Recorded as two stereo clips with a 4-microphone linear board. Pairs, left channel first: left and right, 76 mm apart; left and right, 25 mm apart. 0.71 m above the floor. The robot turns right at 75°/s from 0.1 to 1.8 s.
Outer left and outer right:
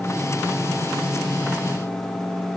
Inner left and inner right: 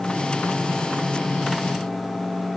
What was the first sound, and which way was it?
Only background noise.